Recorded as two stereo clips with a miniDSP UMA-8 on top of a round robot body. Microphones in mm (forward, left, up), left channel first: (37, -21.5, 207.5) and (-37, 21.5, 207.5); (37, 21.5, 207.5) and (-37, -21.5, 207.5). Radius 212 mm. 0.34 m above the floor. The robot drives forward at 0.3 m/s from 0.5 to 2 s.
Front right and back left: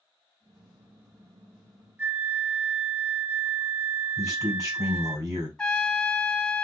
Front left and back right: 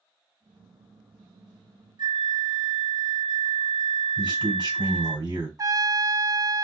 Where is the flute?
150° right, 2.5 m.